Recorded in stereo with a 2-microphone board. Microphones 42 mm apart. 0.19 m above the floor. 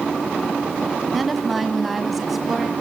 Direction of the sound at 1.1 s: Centre (ahead or behind).